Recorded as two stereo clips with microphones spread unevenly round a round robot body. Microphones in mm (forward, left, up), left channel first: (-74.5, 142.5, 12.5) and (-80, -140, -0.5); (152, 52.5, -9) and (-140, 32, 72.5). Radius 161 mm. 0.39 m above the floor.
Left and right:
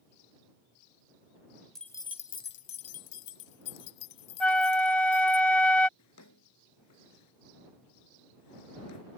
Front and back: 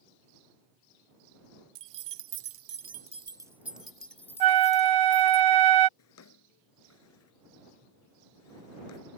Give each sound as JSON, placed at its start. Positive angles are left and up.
{"t": 1.8, "sound": "keys jangling", "azimuth_deg": 180}
{"t": 4.4, "sound": "a flute", "azimuth_deg": 175}
{"t": 6.0, "sound": "a drawer", "azimuth_deg": 45}